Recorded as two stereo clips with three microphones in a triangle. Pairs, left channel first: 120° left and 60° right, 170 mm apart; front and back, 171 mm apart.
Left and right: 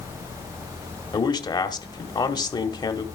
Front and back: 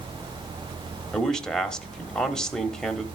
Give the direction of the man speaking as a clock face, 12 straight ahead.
9 o'clock.